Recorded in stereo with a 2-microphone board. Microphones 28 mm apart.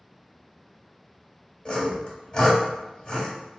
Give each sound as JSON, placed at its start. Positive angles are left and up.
{"t": 1.6, "sound": "sawing", "side_deg": 30, "distance_m": 1.5}